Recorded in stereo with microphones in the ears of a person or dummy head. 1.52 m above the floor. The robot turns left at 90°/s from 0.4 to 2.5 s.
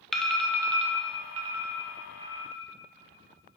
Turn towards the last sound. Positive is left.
turn(degrees=5)  # may be behind; listen again after turning